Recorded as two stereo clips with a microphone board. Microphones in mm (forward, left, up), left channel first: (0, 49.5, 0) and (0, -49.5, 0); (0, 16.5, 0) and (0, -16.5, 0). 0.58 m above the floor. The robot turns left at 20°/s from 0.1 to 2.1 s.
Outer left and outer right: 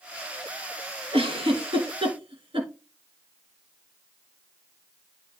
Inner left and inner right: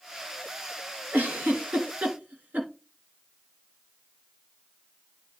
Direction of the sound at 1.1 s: 80° right.